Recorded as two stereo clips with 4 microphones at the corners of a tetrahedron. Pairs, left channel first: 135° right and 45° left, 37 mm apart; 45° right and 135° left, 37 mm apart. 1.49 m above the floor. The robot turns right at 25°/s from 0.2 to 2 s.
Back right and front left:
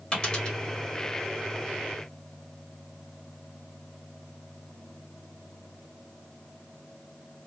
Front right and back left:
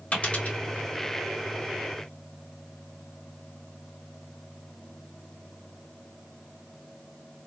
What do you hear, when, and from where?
0.1 s a dropped coin: 85° right, 1.8 m; by 0.6 s 75° right, 1.8 m